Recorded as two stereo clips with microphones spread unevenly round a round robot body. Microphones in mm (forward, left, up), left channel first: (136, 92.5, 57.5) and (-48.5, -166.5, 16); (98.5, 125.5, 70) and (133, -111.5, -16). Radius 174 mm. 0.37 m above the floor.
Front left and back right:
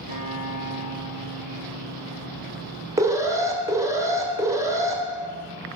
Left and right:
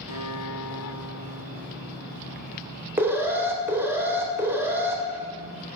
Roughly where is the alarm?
Right.